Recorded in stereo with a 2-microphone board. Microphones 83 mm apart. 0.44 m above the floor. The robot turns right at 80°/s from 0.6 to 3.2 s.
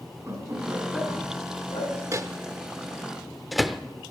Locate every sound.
0.3 s laughter: 35° right (ahead or behind), 5 m; by 1.9 s 65° left (ahead or behind), 5 m
2.1 s a microwave: 40° right (ahead or behind), 0.6 m; by 3.8 s centre (ahead or behind), 0.6 m